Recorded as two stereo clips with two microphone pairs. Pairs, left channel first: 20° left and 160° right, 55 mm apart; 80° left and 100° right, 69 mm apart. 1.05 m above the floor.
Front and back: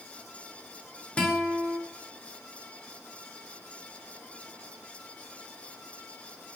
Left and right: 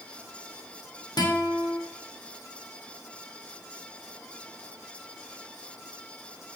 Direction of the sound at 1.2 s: 90° left.